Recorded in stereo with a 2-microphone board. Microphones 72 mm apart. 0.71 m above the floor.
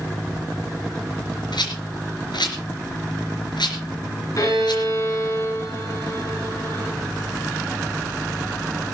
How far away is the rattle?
About 3.5 m.